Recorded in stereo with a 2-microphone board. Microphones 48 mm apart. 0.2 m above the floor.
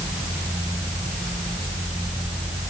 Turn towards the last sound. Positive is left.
No sound to turn to.